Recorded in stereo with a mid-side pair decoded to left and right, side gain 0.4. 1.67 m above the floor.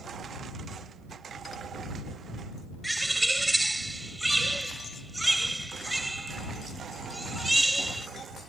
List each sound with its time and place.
2.8 s a bird: 10° right